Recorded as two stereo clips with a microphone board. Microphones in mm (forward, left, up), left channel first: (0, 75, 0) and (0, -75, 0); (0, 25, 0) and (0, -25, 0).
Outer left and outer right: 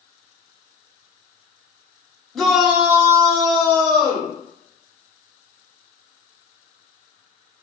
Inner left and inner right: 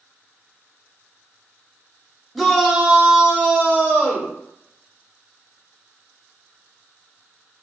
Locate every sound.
2.4 s a shout: 5° left (ahead or behind), 0.9 m; by 4.3 s 30° right (ahead or behind), 1.2 m